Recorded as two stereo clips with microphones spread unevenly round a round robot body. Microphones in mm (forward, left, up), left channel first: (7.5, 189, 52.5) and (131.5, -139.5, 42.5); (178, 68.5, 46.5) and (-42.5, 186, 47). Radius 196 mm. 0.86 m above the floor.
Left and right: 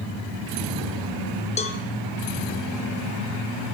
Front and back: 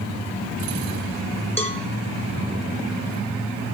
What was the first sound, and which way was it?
A cowbell, 40° left.